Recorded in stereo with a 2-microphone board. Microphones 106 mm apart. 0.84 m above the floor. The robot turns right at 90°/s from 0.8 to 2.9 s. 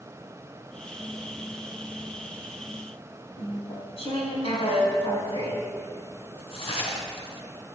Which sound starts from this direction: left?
Chewing, at 3.4 s.